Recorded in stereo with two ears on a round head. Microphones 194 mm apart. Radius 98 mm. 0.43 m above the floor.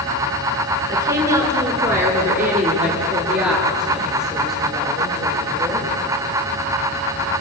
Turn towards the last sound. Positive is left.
turn(degrees=0)  # may be behind; listen again after turning